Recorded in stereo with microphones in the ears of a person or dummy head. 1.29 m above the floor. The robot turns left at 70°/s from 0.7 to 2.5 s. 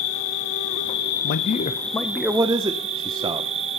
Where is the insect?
90° left, 1.1 m; by 3.8 s 35° right, 1.1 m.